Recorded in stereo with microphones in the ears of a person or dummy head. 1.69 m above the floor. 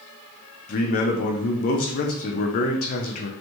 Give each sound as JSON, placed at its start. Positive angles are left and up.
{"t": 0.7, "sound": "a man speaking", "side_deg": 50, "distance_m": 0.6}